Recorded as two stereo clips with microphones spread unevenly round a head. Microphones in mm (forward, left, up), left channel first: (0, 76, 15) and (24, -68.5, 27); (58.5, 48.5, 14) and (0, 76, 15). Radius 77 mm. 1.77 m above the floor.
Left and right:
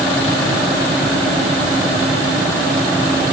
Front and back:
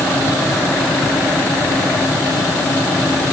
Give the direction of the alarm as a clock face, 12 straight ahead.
No alarm in this recording.